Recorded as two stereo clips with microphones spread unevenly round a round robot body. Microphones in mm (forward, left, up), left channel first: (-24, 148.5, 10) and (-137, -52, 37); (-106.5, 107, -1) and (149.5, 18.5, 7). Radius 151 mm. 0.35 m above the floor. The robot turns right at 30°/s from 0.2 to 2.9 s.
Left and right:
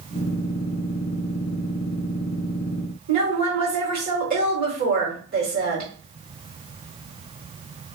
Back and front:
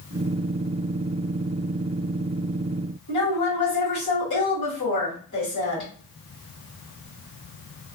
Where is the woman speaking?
165° right, 2.0 m.